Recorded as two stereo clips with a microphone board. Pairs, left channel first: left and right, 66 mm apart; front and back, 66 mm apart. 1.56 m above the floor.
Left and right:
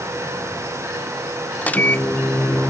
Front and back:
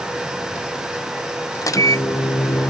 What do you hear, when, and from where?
1.6 s a microwave: 25° left